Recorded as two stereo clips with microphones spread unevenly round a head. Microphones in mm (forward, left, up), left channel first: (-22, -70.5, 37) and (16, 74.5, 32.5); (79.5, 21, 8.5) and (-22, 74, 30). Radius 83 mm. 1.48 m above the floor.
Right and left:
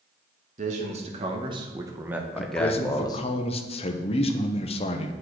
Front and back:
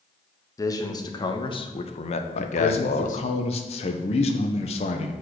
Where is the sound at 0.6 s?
35° left, 1.3 m; by 3.2 s 45° right, 0.9 m.